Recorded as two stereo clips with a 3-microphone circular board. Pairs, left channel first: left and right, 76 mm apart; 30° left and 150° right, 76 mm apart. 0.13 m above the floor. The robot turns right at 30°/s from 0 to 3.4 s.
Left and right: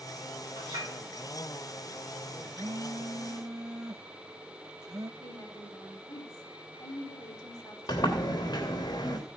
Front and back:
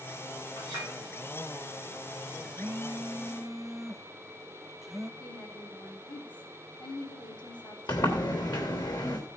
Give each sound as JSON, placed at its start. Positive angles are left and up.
{"t": 0.6, "sound": "a clink", "azimuth_deg": -100, "distance_m": 10.0}
{"t": 2.5, "sound": "a phone buzzing", "azimuth_deg": -90, "distance_m": 0.6}
{"t": 5.2, "sound": "a woman speaking", "azimuth_deg": 45, "distance_m": 5.0}
{"t": 7.9, "sound": "a sliding door", "azimuth_deg": 55, "distance_m": 3.0}